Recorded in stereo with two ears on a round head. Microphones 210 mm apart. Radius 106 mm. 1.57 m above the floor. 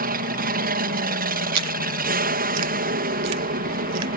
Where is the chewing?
80° right.